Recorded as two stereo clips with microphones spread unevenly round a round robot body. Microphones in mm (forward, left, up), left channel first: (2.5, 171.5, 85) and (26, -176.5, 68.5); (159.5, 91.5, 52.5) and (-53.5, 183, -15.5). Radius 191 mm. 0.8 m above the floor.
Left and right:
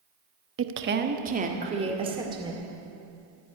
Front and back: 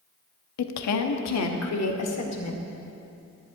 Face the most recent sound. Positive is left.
turn(degrees=-10)